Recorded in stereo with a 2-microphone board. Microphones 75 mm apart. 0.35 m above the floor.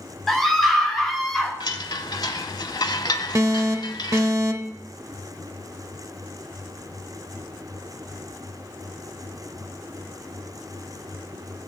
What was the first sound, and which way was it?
A scream, 5° left (ahead or behind).